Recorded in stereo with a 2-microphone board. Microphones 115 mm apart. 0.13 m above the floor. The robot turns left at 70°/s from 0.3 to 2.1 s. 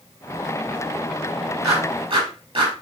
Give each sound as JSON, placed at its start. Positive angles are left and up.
{"t": 1.6, "sound": "a clap", "side_deg": -25, "distance_m": 3.0}